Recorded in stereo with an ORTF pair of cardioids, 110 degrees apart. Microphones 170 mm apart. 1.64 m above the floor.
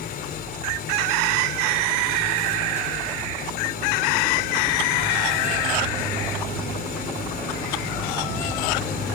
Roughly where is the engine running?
Ahead left.